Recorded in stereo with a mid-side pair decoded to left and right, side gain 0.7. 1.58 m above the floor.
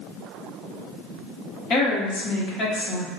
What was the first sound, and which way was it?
A woman speaking, 40° left.